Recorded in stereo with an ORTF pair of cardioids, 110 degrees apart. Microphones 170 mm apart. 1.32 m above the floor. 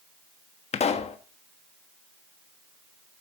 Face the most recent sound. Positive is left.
turn(degrees=40)